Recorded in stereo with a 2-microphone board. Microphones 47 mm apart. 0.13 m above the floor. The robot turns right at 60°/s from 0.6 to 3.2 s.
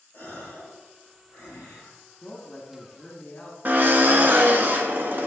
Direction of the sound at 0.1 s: 40° left.